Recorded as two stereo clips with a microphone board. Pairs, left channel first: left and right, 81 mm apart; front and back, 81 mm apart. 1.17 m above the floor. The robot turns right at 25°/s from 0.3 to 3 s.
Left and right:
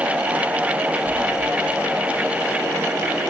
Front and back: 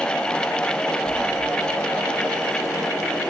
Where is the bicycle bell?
I don't hear a bicycle bell.